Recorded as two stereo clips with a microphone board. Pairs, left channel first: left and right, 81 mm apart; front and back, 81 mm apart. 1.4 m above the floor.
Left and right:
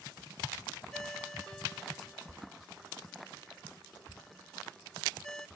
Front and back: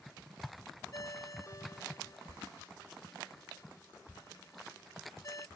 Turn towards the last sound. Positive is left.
turn(degrees=10)